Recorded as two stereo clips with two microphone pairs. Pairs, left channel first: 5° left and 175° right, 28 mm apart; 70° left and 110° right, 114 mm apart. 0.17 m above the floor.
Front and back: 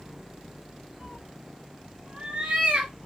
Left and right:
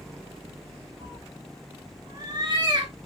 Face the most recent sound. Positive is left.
turn(degrees=-155)